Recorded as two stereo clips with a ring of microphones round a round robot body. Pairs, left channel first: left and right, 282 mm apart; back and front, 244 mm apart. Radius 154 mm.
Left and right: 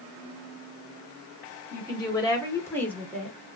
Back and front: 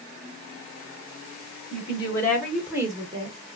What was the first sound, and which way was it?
A woman speaking, 145° left.